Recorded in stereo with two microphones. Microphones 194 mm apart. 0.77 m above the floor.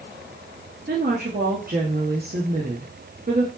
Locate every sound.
0.9 s a woman speaking: 50° right (ahead or behind), 0.9 m